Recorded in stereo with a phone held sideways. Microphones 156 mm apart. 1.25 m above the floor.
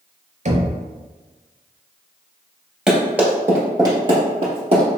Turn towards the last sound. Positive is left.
turn(degrees=-40)  # may be behind; listen again after turning